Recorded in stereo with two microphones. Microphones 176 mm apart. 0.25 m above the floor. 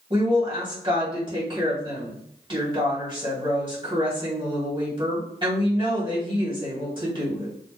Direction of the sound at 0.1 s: 30° right (ahead or behind).